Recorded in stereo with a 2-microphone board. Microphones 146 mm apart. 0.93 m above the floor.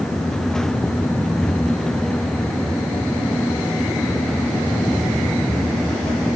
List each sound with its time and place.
Only background noise.